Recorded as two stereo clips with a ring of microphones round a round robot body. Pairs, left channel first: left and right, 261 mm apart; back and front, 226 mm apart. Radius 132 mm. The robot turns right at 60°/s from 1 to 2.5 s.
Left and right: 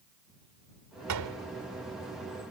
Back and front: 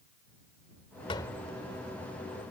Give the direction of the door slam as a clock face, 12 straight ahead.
4 o'clock.